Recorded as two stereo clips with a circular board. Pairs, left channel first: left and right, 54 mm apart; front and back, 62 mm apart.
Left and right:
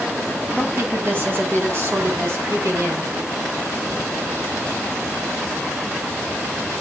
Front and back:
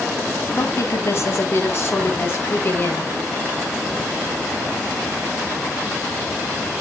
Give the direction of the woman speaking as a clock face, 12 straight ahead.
1 o'clock.